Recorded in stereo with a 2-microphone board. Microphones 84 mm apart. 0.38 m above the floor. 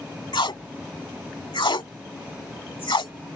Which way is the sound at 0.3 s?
75° left (ahead or behind).